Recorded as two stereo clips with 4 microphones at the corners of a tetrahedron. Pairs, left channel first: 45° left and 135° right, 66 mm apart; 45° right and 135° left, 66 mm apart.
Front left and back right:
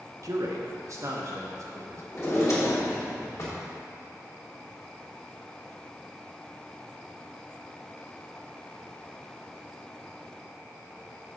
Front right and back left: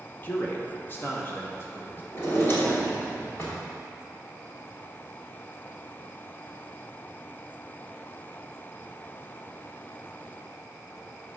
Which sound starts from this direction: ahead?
A drawer, at 2.1 s.